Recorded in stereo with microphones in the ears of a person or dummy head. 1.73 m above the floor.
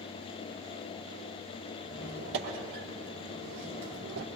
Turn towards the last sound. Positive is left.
turn(degrees=-60)  # may be behind; listen again after turning